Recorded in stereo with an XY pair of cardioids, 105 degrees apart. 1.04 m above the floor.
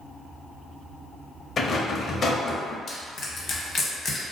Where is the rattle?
45° left, 0.6 m.